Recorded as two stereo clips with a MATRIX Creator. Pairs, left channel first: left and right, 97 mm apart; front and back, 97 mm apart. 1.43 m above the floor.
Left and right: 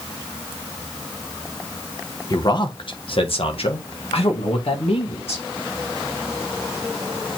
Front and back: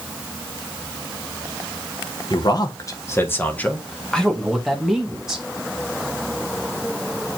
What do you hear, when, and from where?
2.3 s a man speaking: 40° left, 1.3 m; by 5.4 s 95° left, 2.5 m